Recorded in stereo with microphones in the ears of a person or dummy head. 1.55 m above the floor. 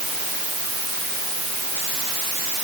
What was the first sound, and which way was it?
Only background noise.